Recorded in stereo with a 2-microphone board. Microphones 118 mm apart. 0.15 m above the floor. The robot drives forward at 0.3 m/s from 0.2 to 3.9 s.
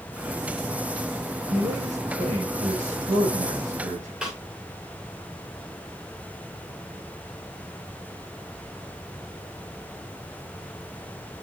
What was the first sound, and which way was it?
A man speaking, 80° right.